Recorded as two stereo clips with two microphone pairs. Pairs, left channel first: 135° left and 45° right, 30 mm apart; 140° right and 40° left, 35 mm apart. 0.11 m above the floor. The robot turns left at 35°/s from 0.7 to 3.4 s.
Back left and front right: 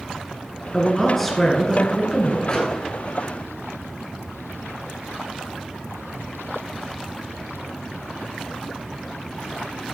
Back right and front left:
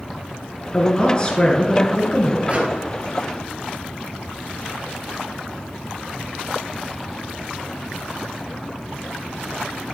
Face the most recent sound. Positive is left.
turn(degrees=50)